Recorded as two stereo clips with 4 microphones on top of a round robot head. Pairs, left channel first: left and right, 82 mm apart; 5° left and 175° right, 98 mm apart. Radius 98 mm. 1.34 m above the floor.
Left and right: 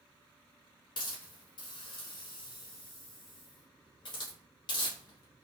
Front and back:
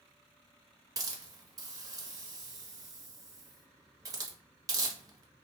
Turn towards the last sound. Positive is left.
turn(degrees=125)